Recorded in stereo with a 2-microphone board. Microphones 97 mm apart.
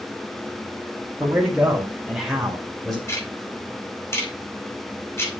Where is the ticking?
25° left (ahead or behind), 3 m.